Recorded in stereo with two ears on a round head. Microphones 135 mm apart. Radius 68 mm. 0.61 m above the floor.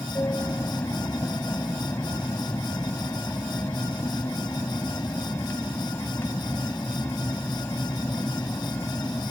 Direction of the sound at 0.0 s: 15° left (ahead or behind).